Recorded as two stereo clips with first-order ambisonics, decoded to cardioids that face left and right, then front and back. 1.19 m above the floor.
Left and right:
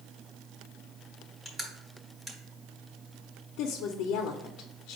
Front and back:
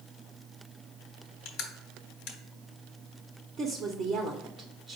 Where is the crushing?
15° right, 1.2 m.